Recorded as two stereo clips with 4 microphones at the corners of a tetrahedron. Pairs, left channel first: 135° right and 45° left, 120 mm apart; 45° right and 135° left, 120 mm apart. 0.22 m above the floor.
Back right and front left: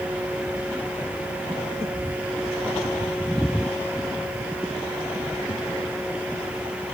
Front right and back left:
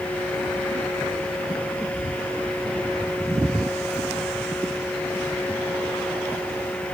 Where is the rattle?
No rattle in this recording.